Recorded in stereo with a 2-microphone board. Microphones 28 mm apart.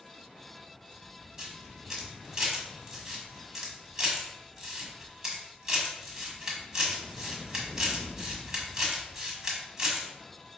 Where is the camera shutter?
15° right (ahead or behind), 1.4 m.